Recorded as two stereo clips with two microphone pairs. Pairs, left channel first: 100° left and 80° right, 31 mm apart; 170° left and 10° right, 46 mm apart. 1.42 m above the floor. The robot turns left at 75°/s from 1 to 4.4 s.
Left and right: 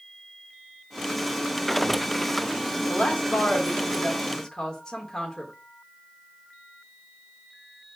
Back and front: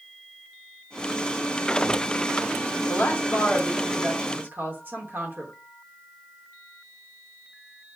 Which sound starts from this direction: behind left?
A woman speaking, at 2.9 s.